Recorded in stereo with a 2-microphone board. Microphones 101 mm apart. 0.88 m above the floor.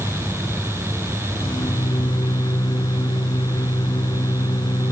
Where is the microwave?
50° left (ahead or behind).